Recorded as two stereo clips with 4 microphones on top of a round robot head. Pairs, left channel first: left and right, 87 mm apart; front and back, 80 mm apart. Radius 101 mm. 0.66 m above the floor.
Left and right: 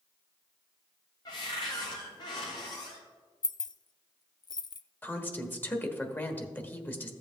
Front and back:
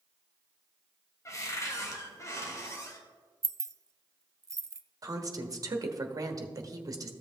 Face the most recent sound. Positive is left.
turn(degrees=155)